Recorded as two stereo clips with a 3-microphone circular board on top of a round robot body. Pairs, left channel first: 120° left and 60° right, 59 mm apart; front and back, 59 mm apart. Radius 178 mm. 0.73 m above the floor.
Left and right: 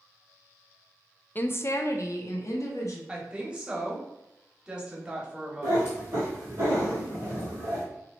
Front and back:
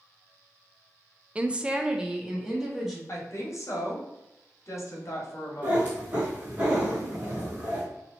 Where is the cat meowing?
120° right, 0.9 m.